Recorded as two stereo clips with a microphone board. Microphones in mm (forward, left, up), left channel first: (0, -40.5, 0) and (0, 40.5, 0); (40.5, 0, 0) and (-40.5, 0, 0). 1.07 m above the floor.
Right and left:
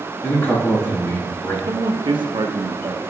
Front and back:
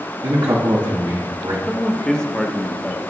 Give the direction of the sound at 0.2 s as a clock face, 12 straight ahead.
5 o'clock.